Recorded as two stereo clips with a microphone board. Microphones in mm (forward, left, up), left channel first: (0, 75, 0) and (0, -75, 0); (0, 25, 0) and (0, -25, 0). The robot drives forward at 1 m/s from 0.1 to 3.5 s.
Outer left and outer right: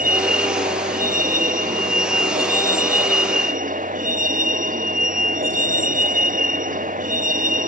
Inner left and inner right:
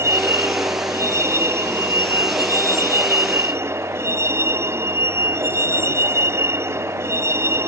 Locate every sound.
0.0 s a vehicle: 75° right (ahead or behind); by 7.7 s 70° right (ahead or behind)